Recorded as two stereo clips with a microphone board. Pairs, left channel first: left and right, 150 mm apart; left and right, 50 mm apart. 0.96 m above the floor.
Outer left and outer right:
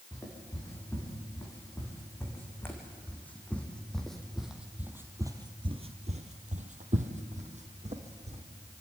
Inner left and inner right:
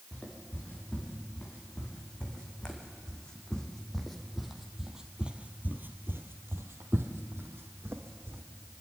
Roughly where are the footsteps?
Left.